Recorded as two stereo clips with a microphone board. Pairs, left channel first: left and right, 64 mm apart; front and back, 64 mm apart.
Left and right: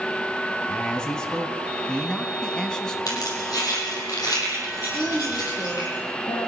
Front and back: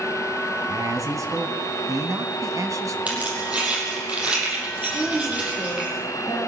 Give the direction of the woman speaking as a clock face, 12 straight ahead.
8 o'clock.